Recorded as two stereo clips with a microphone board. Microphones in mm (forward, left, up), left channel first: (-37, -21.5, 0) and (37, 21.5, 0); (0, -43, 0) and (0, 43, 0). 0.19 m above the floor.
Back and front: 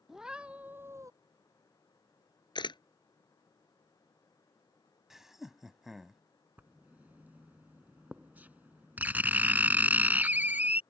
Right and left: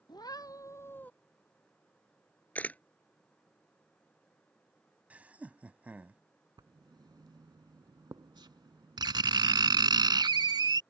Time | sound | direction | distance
0.1 | a cat meowing | 55° right | ?
2.5 | a camera shutter | 160° right | ?
5.1 | laughter | 105° left | ?
6.6 | writing | 95° left | ?